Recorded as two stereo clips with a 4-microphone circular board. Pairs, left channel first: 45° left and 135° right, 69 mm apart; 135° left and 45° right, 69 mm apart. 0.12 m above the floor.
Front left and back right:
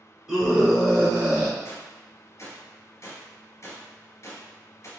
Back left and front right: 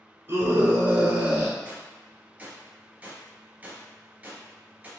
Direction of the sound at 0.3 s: 55° right.